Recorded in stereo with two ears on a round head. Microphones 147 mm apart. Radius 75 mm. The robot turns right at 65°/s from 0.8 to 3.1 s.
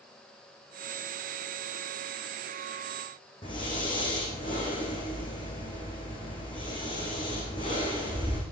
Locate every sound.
3.4 s breathing: 30° left (ahead or behind), 6.5 m